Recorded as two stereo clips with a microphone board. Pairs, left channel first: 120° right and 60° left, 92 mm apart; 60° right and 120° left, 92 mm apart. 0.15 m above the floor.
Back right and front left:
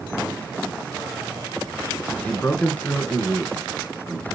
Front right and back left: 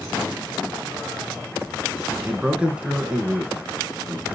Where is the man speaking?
175° right, 1.5 m.